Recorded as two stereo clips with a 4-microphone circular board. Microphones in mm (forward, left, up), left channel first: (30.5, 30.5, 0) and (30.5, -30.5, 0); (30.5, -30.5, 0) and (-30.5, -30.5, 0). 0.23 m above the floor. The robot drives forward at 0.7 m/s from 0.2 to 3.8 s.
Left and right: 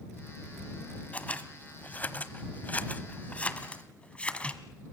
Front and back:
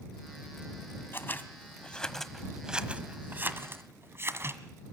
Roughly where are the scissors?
Ahead left.